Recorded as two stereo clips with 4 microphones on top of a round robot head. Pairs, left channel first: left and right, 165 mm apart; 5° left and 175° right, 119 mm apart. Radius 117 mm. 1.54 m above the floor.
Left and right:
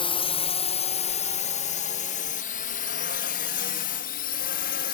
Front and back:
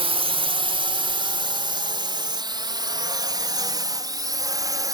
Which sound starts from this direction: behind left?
A drone, at 0.0 s.